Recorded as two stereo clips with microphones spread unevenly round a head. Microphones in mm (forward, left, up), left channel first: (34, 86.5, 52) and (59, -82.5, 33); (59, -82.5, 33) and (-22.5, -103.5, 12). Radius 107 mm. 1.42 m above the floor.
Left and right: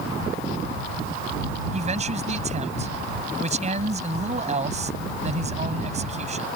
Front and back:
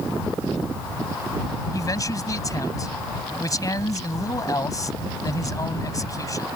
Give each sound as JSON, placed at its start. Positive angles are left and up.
{"t": 1.7, "sound": "a man speaking", "azimuth_deg": -30}